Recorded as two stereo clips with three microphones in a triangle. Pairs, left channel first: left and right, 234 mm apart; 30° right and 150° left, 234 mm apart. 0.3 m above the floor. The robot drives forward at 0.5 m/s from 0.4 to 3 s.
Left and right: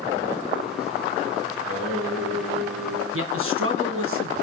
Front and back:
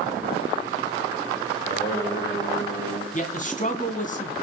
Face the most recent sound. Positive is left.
turn(degrees=-85)